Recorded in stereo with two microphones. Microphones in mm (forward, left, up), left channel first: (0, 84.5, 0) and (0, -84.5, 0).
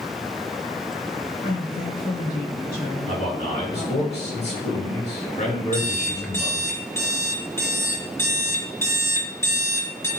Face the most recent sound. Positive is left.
turn(degrees=15)  # may be behind; listen again after turning